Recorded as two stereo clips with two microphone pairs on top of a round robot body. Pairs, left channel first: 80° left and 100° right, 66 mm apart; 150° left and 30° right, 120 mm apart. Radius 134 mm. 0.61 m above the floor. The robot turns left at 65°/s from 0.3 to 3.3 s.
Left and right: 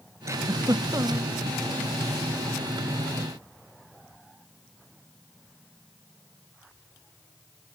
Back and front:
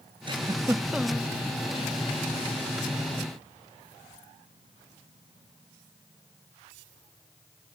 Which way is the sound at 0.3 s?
75° right.